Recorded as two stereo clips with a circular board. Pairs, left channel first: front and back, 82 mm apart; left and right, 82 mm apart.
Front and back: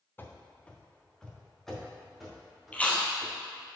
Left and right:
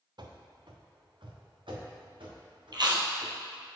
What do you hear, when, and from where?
0.2 s running footsteps: 65° right, 0.8 m; by 3.3 s 90° right, 3 m
2.7 s chewing: 70° right, 1.1 m